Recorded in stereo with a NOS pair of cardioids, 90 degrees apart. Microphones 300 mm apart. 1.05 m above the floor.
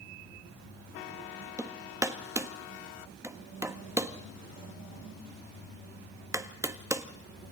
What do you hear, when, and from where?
1.6 s hammering: 10° right, 1.3 m